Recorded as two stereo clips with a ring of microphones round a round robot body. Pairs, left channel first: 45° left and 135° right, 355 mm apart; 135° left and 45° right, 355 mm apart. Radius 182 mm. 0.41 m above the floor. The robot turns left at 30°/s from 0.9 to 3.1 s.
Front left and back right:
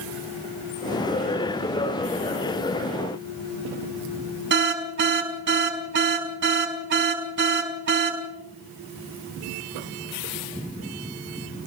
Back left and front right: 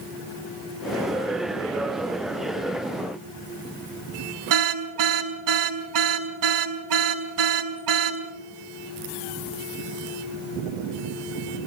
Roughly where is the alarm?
Right.